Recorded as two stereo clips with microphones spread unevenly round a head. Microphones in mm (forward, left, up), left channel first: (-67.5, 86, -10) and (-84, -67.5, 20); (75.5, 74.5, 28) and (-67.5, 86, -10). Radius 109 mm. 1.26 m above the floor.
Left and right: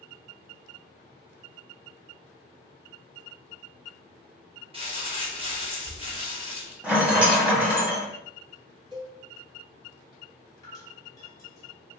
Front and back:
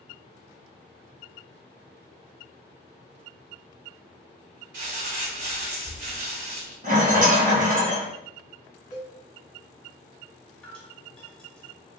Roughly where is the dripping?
Ahead.